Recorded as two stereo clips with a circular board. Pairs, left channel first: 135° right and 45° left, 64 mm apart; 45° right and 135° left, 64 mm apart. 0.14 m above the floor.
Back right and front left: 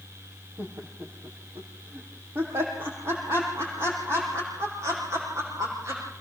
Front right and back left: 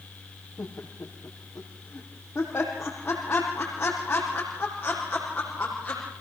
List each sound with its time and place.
0.6 s laughter: 5° left, 4.5 m; by 6.0 s 25° left, 7.5 m